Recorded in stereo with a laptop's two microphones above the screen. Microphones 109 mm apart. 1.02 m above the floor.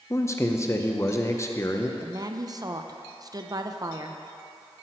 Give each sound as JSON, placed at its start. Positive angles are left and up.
{"t": 0.1, "sound": "a man speaking", "side_deg": 25, "distance_m": 0.6}
{"t": 2.0, "sound": "a woman speaking", "side_deg": -35, "distance_m": 0.5}